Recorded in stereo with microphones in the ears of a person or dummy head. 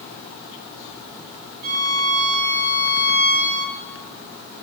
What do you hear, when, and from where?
1.6 s a violin: 40° right (ahead or behind), 5 m